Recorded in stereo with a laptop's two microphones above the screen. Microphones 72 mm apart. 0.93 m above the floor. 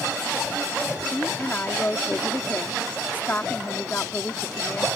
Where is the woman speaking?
25° left (ahead or behind).